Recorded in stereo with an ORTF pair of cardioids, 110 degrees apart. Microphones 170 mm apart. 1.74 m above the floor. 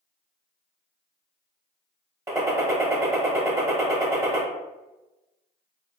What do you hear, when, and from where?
2.3 s a gunshot: 15° right, 0.9 m